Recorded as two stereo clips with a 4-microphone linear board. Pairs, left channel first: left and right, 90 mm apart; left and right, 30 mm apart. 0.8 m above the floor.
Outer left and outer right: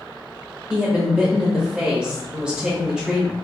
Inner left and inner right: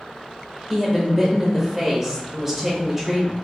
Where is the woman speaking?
5° right (ahead or behind), 0.7 m.